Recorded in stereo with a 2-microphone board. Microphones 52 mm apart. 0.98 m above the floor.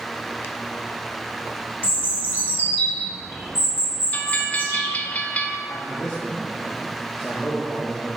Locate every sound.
1.8 s a bird: 45° left (ahead or behind), 1.9 m
4.1 s a bell: 30° left (ahead or behind), 0.5 m
5.7 s a man speaking: 25° left (ahead or behind), 1.2 m